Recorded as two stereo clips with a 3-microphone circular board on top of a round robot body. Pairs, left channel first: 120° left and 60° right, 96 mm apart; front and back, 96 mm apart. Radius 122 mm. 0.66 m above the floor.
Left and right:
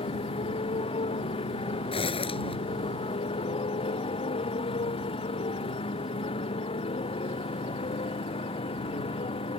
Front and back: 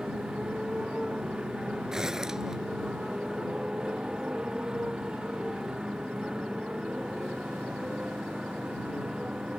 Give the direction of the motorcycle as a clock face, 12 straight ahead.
9 o'clock.